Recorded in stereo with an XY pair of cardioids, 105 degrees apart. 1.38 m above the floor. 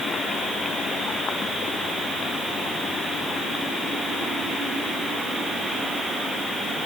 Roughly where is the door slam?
I don't hear a door slam.